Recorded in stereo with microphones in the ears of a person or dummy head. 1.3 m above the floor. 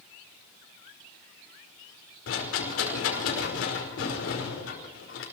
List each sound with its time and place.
2.3 s a rattle: 80° left, 5 m